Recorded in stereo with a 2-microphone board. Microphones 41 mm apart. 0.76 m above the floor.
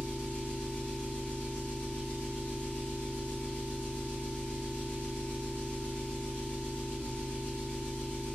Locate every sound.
0.0 s an engine running: 30° left (ahead or behind), 1.2 m